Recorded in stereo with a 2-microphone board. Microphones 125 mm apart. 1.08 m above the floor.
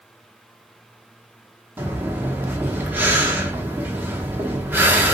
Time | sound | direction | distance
1.8 | breathing | 15° right (ahead or behind) | 0.7 m